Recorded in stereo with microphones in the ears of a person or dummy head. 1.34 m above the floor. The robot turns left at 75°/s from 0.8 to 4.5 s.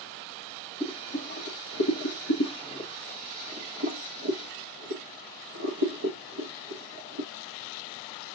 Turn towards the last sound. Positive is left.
turn(degrees=-75)  # may be behind; listen again after turning